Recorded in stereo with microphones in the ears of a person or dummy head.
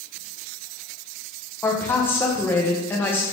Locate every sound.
1.6 s a woman speaking: 15° left (ahead or behind), 1.2 m